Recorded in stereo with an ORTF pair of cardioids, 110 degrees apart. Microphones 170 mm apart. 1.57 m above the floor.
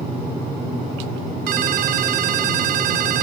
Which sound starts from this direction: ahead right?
A ringtone, at 1.5 s.